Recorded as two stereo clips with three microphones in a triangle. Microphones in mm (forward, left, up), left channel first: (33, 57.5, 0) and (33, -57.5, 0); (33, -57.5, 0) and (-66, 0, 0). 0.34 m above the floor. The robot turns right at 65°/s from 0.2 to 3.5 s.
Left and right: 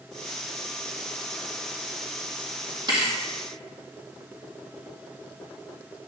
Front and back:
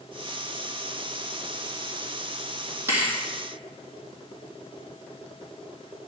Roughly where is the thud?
Behind right.